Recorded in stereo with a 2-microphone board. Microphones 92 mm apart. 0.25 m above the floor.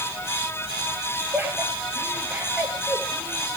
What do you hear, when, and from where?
1.3 s laughter: 15° right (ahead or behind), 7 m